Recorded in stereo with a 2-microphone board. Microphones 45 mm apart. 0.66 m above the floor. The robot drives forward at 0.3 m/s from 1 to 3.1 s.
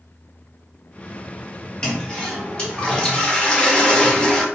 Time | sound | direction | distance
1.8 | a toilet flushing | 20° left (ahead or behind) | 0.8 m